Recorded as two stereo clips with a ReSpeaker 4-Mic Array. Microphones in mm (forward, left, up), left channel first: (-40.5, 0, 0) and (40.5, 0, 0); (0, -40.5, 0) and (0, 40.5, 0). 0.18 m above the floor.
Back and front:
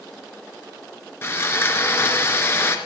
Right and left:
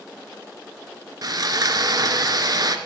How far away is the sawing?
About 1.5 m.